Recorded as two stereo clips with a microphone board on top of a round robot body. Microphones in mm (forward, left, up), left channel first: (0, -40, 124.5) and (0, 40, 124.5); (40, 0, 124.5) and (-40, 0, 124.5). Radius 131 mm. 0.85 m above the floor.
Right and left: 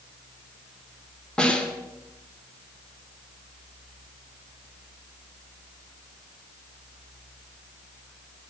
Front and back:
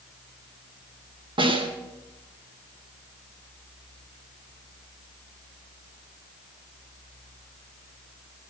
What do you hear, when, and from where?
1.4 s a snare drum: 170° right, 2.5 m